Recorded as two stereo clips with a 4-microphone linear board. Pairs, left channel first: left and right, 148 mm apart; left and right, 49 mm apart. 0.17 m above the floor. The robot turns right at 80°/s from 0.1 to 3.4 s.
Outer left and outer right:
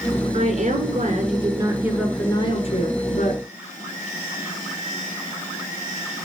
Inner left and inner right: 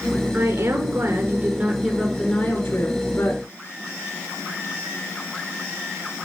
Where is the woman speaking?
130° right, 2 m; by 3.4 s 115° left, 2 m.